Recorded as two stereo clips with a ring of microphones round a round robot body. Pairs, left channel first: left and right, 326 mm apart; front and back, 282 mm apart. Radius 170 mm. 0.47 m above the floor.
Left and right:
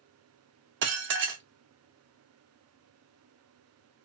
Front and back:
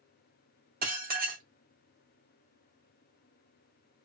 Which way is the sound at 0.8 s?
130° right.